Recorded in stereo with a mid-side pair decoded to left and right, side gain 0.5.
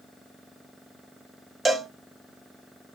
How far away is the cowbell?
About 0.8 m.